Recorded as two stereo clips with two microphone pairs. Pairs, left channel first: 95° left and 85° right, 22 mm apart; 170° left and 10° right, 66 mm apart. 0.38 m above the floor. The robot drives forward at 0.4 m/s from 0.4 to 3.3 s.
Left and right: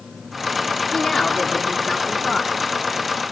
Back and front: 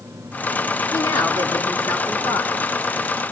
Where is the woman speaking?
145° left, 3.5 m; by 2.5 s 150° left, 4 m.